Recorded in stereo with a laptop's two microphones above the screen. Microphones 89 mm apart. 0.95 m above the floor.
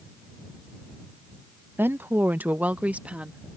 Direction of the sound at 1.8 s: 20° right (ahead or behind).